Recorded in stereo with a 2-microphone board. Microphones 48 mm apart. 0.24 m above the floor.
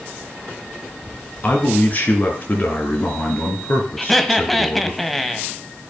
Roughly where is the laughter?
Centre.